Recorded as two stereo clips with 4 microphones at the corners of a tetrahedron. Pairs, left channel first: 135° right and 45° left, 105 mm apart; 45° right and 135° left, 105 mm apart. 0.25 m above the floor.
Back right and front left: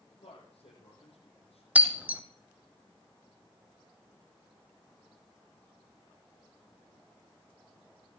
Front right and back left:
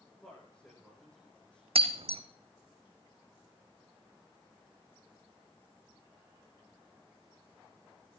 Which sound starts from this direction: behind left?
Breaking glass, at 1.8 s.